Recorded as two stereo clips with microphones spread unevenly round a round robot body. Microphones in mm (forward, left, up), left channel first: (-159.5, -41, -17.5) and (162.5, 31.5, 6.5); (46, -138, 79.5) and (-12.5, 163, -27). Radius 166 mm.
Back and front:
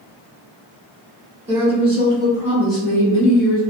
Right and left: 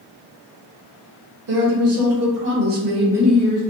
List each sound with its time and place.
1.5 s a woman speaking: 85° left, 1.7 m; by 3.6 s 170° right, 0.7 m